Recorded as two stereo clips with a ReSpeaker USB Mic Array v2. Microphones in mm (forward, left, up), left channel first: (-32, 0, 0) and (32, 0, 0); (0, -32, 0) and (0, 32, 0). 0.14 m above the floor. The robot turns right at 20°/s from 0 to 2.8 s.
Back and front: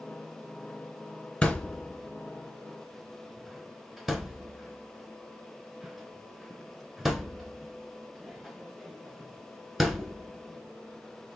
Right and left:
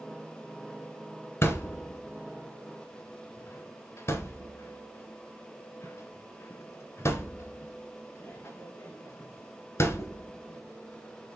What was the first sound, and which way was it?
A thud, 110° right.